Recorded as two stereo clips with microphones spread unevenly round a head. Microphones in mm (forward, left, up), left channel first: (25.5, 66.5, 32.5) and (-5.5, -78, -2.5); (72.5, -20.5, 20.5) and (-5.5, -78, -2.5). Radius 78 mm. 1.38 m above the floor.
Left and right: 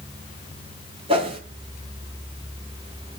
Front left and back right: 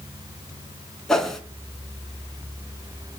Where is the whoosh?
45° right, 3 m.